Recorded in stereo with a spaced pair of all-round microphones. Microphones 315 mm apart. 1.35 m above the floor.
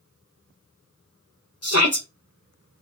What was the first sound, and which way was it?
A shout, 50° left (ahead or behind).